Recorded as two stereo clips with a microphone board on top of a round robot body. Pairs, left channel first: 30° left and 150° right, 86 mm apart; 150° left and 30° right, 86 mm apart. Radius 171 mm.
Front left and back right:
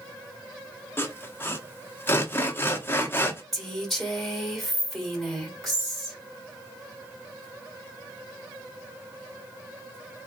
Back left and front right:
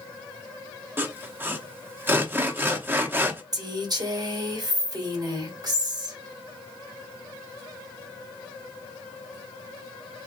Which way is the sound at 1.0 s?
5° left.